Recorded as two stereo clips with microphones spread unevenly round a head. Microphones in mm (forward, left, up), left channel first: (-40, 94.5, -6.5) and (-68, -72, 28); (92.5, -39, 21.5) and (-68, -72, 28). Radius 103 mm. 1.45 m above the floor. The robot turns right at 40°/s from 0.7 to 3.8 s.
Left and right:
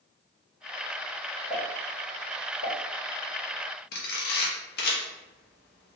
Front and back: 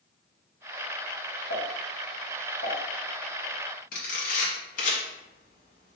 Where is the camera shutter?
55° left, 0.6 m.